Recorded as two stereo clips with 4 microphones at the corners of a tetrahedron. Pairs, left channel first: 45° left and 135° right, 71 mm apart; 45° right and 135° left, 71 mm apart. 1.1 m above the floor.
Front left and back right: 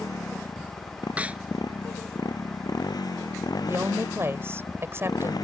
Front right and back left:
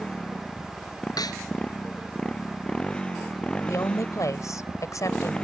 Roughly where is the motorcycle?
Ahead left.